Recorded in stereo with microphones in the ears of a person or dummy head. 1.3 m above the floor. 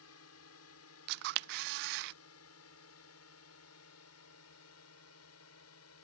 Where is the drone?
75° left (ahead or behind).